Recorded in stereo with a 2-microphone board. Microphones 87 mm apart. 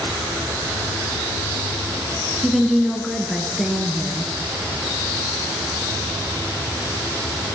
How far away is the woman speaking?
About 1.3 m.